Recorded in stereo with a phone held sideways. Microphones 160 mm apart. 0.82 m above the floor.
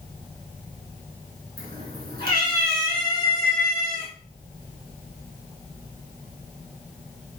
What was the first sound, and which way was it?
A cat meowing, 70° right (ahead or behind).